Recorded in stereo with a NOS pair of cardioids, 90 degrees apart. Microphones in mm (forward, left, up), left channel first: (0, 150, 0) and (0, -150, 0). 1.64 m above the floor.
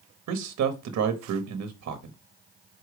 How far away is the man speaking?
About 1.1 m.